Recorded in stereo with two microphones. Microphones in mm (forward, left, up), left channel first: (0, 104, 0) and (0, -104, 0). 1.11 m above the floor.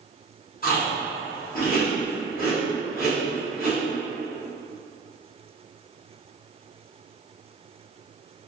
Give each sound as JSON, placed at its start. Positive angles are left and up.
{"t": 0.6, "sound": "chewing", "side_deg": 45, "distance_m": 1.1}